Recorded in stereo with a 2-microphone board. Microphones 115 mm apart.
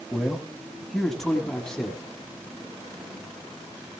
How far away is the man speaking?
About 1.7 m.